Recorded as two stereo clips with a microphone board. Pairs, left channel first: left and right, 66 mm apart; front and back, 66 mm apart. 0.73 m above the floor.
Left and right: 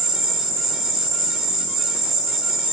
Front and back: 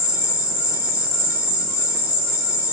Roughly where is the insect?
Behind.